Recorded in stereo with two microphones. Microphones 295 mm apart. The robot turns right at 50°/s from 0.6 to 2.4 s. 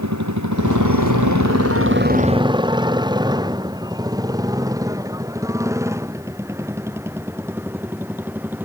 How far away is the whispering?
I don't hear whispering.